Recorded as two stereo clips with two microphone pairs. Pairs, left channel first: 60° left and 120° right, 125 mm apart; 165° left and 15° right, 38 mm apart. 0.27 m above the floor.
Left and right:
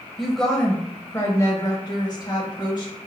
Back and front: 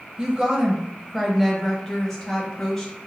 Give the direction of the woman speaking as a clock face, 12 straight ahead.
1 o'clock.